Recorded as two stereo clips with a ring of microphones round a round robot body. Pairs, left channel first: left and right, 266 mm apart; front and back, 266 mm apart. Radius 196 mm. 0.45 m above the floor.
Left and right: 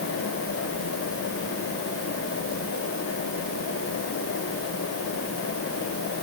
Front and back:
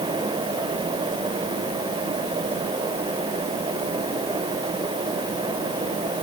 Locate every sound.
Only background noise.